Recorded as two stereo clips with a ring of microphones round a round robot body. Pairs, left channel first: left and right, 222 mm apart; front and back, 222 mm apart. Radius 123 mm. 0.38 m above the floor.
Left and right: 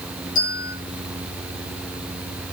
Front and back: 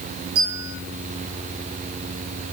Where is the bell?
145° left, 8 m.